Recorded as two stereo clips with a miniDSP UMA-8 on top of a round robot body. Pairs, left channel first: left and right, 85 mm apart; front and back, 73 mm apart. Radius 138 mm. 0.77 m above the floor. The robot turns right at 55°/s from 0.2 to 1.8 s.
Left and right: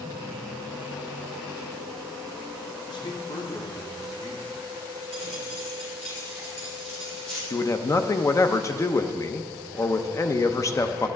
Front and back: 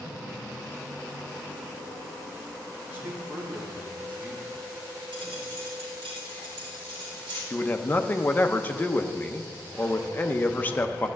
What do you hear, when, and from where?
2.9 s a man speaking: 115° left, 2.5 m
5.1 s a dropped coin: 170° left, 3 m
7.5 s a man speaking: 55° left, 0.8 m